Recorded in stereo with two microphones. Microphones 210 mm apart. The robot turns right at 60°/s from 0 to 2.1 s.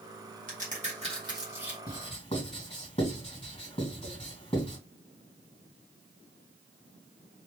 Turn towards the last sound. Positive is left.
turn(degrees=25)  # may be behind; listen again after turning